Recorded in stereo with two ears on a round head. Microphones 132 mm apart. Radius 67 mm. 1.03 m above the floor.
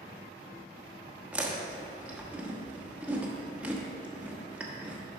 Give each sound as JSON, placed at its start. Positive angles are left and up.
{"t": 1.3, "sound": "chewing", "side_deg": -10, "distance_m": 1.0}